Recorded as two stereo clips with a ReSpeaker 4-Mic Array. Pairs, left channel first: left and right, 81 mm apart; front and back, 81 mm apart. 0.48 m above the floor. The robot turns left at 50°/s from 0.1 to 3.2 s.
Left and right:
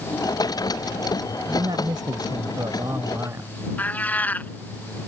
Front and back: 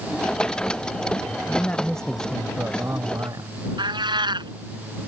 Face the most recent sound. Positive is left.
turn(degrees=160)